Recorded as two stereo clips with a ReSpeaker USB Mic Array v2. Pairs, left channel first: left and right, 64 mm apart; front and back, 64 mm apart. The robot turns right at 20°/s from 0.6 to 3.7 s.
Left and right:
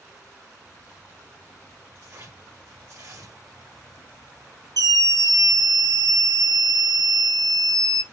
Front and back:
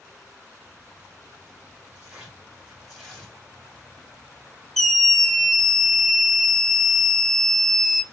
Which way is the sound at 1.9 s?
105° right.